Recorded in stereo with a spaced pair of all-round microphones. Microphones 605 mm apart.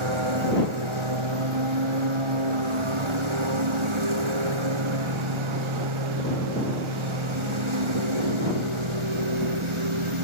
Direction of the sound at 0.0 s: 50° right (ahead or behind).